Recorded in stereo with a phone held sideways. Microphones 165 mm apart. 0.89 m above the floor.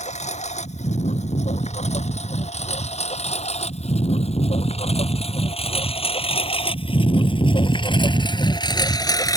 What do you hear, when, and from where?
0.0 s a lawn mower: 45° left (ahead or behind); by 9.4 s 20° left (ahead or behind)